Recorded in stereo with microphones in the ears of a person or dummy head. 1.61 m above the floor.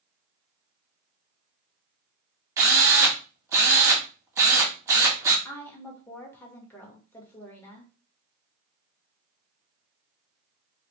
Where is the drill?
10° right (ahead or behind), 1.3 m.